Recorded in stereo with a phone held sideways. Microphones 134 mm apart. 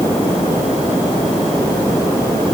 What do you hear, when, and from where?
Only background noise.